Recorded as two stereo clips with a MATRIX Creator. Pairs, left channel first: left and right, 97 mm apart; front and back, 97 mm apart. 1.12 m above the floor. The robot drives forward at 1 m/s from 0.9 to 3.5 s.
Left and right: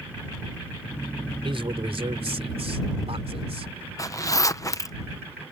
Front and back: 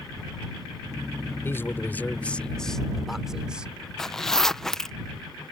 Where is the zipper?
80° left.